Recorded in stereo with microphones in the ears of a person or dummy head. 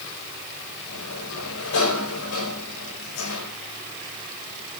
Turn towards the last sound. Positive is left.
turn(degrees=70)  # may be behind; listen again after turning